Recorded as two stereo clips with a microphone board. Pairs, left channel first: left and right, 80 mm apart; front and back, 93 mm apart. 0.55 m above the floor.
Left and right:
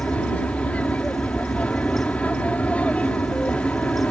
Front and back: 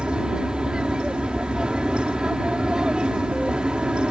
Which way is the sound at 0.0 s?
120° left.